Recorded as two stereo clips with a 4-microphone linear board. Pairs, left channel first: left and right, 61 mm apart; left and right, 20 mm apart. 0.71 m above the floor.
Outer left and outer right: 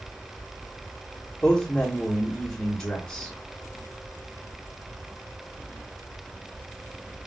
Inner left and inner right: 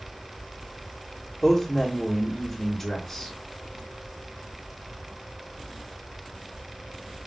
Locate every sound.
1.4 s a man speaking: 30° left (ahead or behind), 1.2 m